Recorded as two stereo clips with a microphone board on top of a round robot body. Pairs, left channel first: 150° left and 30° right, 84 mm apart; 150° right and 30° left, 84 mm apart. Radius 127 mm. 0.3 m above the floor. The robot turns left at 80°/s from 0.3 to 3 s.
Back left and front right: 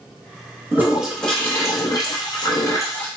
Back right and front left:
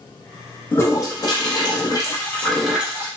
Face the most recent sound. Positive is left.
turn(degrees=90)